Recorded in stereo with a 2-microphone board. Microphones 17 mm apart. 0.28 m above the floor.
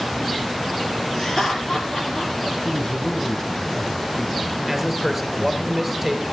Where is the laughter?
30° left (ahead or behind), 6 m; by 2.3 s 35° left (ahead or behind), 6.5 m.